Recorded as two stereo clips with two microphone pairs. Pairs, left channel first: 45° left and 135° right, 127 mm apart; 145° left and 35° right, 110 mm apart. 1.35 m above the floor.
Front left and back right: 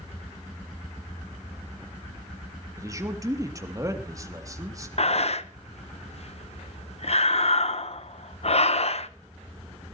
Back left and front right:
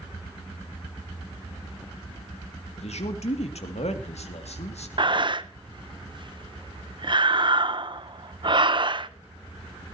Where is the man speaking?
160° left, 2.5 m.